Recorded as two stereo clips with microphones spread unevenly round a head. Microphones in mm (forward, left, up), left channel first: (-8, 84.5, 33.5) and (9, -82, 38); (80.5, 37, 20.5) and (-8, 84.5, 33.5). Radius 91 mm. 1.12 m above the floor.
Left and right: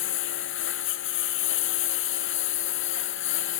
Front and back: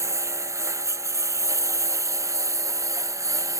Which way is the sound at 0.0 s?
95° left.